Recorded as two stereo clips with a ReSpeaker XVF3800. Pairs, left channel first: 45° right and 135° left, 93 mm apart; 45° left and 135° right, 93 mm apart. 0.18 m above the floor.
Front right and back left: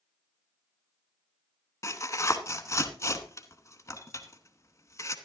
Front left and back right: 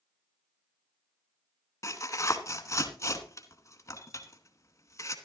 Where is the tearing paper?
Straight ahead, 1.0 m.